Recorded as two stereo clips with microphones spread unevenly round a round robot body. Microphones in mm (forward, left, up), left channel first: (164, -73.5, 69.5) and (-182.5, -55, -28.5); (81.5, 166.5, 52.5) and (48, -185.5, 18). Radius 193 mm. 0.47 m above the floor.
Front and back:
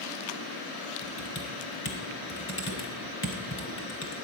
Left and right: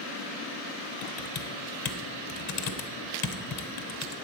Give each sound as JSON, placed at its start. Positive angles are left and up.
{"t": 1.0, "sound": "typing on a keyboard", "azimuth_deg": 60, "distance_m": 1.2}